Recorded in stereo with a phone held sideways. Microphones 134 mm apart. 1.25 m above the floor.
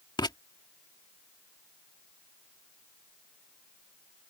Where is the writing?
35° left (ahead or behind).